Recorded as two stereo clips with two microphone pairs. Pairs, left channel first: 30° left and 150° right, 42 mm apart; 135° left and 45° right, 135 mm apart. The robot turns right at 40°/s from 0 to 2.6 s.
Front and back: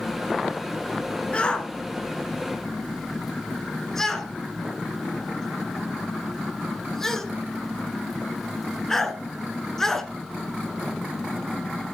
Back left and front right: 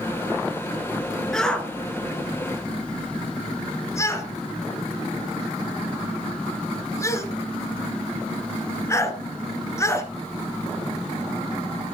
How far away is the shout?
About 1.1 m.